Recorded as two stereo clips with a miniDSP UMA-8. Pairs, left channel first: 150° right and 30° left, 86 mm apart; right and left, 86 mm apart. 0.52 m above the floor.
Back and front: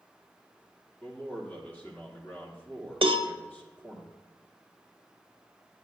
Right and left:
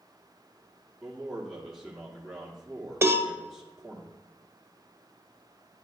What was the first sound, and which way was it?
A man speaking, straight behind.